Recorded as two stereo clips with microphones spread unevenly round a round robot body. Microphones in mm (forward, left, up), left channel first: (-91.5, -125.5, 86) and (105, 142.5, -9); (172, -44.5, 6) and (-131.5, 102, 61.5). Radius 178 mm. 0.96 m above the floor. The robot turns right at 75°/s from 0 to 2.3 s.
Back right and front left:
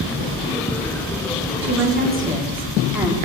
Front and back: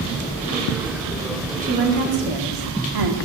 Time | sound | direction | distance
1.6 | a woman speaking | 85° left | 2.5 m